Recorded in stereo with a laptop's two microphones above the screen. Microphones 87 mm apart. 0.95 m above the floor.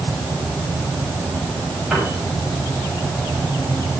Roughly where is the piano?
Centre.